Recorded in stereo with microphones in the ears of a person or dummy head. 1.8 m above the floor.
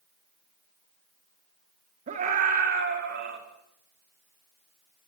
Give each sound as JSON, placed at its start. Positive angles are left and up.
{"t": 2.1, "sound": "a scream", "side_deg": -40, "distance_m": 3.5}